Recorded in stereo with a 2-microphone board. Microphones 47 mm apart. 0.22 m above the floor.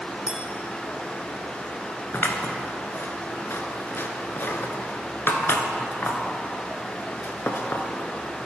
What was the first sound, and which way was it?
A clink, 20° right (ahead or behind).